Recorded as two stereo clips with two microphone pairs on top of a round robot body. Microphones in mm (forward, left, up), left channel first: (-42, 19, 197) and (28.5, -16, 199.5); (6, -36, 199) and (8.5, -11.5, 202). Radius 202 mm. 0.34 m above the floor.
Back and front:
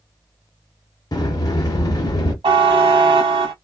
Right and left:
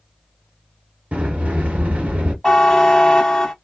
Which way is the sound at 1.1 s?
115° left.